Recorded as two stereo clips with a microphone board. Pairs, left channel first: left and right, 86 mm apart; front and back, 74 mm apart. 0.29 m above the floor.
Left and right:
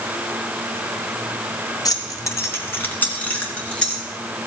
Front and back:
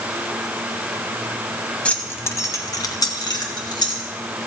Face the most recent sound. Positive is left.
turn(degrees=10)